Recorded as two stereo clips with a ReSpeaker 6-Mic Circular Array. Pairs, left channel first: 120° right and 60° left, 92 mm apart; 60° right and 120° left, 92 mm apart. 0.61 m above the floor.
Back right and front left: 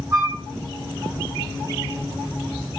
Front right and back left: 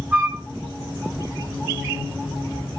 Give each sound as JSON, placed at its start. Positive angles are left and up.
{"t": 0.1, "sound": "a flute", "azimuth_deg": 65, "distance_m": 1.4}